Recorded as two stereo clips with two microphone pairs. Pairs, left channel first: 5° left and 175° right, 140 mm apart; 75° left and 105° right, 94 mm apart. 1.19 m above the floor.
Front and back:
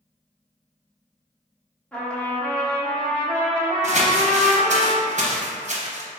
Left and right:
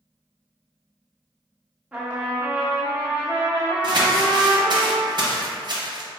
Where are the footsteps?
No footsteps in this recording.